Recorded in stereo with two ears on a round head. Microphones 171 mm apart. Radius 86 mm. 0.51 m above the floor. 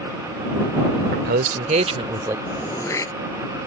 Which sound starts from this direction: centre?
Throat clearing, at 2.5 s.